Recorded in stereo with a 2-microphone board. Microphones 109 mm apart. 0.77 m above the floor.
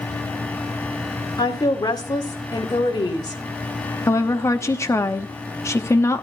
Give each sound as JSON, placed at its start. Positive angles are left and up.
{"t": 1.4, "sound": "a woman speaking", "side_deg": 35, "distance_m": 1.9}
{"t": 4.1, "sound": "a woman speaking", "side_deg": 25, "distance_m": 1.0}